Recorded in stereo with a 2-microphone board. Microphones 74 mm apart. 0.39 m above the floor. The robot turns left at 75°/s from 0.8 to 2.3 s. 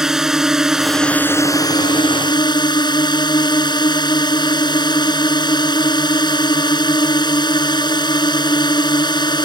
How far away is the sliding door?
No sliding door in this recording.